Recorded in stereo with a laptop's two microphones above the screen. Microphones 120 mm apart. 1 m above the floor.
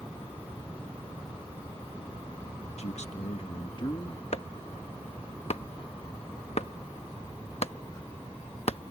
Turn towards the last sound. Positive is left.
turn(degrees=60)  # may be behind; listen again after turning